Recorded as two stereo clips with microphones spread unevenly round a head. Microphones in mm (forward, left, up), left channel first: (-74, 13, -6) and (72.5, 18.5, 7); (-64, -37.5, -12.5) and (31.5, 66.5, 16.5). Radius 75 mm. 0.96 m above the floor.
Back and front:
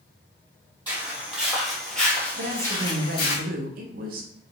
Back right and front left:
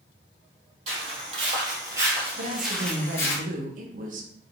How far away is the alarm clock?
I don't hear an alarm clock.